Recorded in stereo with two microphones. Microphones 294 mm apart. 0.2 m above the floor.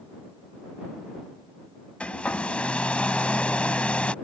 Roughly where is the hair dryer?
Centre.